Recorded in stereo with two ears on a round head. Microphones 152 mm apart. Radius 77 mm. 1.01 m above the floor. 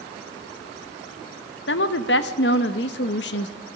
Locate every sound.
1.7 s a woman speaking: 70° left (ahead or behind), 1.1 m